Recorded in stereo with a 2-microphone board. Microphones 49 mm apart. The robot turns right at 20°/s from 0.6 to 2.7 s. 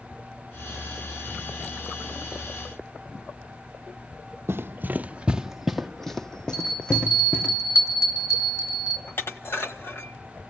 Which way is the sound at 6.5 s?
90° left.